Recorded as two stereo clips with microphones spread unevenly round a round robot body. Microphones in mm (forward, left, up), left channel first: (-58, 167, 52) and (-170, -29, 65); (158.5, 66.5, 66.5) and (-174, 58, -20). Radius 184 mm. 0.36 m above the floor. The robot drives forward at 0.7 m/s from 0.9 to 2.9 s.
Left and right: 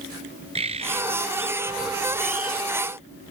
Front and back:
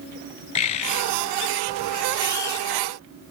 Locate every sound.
0.6 s a bird: 45° right; by 2.7 s 55° right